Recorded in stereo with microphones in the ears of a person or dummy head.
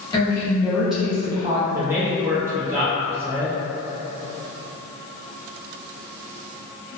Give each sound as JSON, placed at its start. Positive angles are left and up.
{"t": 0.1, "sound": "a woman speaking", "side_deg": 25, "distance_m": 1.0}
{"t": 1.7, "sound": "a man speaking", "side_deg": -15, "distance_m": 0.5}